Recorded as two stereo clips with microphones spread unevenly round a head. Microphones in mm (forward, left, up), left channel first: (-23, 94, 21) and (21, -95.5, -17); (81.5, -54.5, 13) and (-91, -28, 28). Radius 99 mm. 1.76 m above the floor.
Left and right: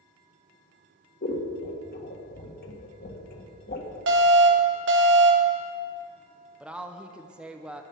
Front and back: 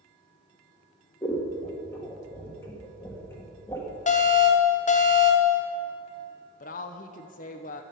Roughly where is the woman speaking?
Ahead.